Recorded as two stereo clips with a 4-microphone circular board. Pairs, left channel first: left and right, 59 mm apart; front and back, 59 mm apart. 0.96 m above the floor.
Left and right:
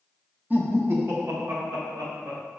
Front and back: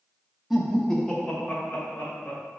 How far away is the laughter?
About 0.7 m.